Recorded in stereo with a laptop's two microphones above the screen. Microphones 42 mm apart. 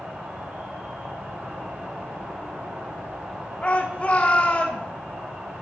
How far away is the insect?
About 3 m.